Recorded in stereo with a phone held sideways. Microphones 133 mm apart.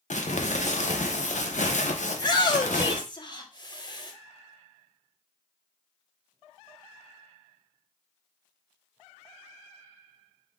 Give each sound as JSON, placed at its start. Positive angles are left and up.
{"t": 0.1, "sound": "crumpling", "side_deg": 65, "distance_m": 0.6}
{"t": 2.1, "sound": "a shout", "side_deg": 35, "distance_m": 1.1}